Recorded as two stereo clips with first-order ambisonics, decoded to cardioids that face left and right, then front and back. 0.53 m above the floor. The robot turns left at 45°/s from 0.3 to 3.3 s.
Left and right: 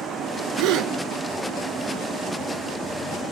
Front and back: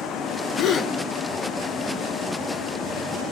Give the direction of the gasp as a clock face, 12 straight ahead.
2 o'clock.